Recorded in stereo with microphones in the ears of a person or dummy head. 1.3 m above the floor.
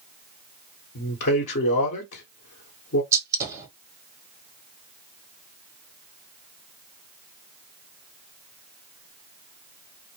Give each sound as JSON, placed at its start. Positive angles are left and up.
{"t": 0.9, "sound": "a man speaking", "side_deg": 55, "distance_m": 1.1}
{"t": 3.1, "sound": "a gunshot", "side_deg": -15, "distance_m": 0.7}